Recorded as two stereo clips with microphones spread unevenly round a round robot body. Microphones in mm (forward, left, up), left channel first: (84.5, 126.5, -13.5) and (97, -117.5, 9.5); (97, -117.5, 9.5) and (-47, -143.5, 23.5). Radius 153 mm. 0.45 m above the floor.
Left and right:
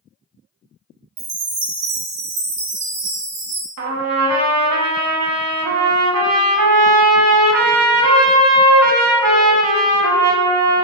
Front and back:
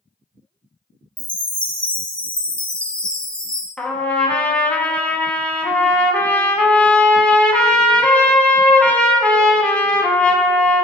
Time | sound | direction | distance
1.2 | a chime | 75° right | 0.8 m
3.8 | a trumpet | 75° right | 0.7 m